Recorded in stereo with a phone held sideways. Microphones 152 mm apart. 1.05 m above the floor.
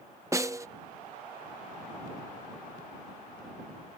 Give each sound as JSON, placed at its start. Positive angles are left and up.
{"t": 0.3, "sound": "a snare drum", "side_deg": -20}